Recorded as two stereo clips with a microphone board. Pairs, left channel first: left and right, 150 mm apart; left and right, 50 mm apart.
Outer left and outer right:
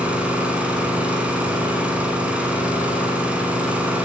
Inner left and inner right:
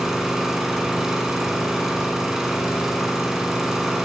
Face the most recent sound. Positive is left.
turn(degrees=-10)  # may be behind; listen again after turning